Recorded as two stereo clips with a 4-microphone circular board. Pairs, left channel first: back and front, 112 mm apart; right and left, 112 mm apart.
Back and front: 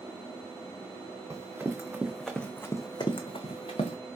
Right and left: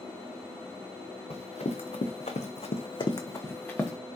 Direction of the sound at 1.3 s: 65° right.